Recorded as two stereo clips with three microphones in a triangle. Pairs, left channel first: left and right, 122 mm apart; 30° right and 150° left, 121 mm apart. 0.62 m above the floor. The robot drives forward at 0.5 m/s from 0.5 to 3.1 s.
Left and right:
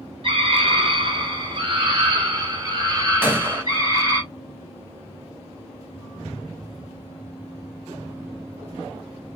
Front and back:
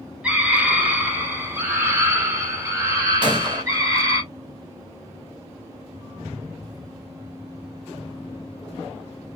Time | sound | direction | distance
0.2 | a scream | 130° right | 2.5 m
3.2 | a gunshot | 160° right | 1.8 m